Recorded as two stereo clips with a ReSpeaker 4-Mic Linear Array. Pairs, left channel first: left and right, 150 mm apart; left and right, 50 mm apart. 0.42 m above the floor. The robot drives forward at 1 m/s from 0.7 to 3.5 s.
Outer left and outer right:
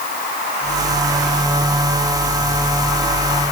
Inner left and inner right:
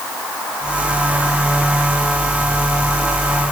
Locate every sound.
Only background noise.